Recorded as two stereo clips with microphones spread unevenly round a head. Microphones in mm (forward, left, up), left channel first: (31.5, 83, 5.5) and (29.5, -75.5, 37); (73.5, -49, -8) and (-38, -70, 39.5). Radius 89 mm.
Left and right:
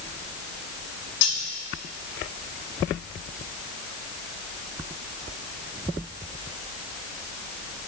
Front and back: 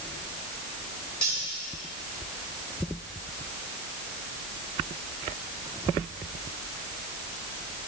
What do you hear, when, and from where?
1.2 s cutlery clinking: 100° left, 3 m